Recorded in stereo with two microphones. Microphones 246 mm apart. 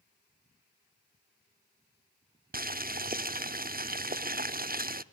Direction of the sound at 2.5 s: 35° right (ahead or behind).